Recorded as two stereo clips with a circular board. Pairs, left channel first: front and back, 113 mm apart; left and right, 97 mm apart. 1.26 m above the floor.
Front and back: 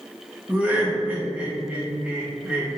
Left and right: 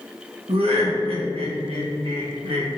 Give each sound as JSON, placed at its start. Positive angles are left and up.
{"t": 0.5, "sound": "laughter", "azimuth_deg": -100, "distance_m": 1.3}